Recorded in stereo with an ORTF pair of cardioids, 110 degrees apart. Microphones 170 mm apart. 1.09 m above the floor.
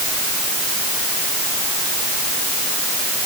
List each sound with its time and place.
Only background noise.